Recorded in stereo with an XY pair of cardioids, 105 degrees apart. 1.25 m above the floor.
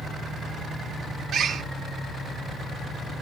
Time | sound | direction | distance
1.3 | a bird | 65° right | 0.6 m